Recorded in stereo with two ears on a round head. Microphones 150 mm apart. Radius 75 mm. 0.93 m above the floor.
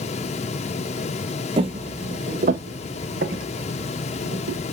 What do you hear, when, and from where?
1.6 s footsteps: 30° right (ahead or behind), 1.1 m; by 4.6 s 60° right (ahead or behind), 2.5 m